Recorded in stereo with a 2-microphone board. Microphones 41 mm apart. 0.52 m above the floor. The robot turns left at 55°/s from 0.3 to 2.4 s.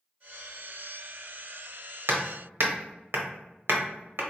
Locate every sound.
2.1 s hammering: 80° right, 0.8 m